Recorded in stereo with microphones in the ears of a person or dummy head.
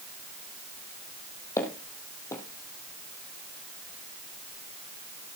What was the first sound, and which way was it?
Footsteps, 15° left (ahead or behind).